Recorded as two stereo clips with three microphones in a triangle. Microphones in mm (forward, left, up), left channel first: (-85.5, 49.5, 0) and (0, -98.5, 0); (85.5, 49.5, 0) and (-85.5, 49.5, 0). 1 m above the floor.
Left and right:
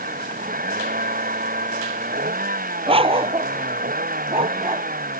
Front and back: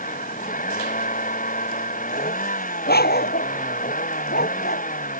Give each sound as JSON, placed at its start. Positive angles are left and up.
{"t": 0.0, "sound": "a vehicle", "azimuth_deg": -35}
{"t": 2.9, "sound": "a dog barking", "azimuth_deg": -5}